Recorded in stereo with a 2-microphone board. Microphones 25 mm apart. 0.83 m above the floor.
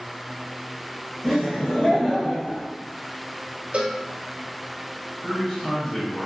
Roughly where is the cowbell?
Right.